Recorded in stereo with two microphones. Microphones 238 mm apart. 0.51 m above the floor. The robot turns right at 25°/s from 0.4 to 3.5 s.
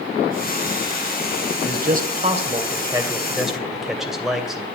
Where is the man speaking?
50° right, 2.5 m; by 4.7 s straight ahead, 2.5 m.